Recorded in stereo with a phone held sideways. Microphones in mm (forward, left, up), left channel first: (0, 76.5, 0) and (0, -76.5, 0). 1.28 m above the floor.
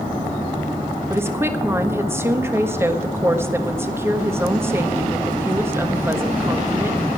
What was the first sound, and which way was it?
A woman speaking, 15° right (ahead or behind).